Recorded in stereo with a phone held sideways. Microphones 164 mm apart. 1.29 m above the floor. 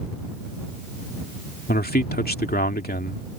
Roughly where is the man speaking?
Left.